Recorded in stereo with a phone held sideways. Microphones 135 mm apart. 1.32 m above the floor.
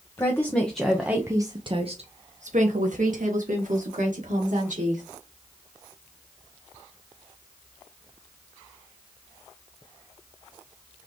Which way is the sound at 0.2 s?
20° left (ahead or behind).